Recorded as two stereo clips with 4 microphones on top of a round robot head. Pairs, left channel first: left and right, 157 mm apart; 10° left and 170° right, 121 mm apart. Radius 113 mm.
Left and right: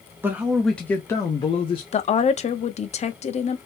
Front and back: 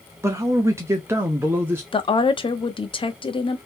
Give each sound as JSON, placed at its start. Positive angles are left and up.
{"t": 0.2, "sound": "a man speaking", "azimuth_deg": -145, "distance_m": 0.9}
{"t": 1.9, "sound": "a woman speaking", "azimuth_deg": 50, "distance_m": 0.8}